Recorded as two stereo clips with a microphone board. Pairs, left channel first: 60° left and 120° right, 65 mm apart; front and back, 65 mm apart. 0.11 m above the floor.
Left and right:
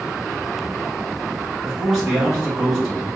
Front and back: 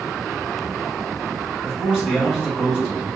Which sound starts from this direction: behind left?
A man speaking, at 1.6 s.